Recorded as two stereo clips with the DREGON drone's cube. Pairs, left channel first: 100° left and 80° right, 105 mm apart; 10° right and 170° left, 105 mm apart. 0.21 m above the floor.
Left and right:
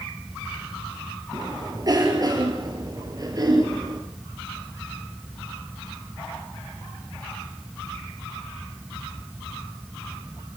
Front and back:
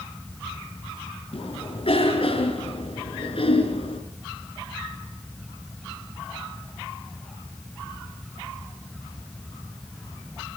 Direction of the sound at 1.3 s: 30° right.